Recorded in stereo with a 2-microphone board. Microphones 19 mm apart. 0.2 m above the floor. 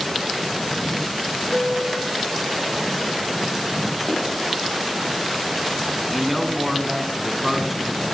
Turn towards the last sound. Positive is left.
turn(degrees=-10)  # may be behind; listen again after turning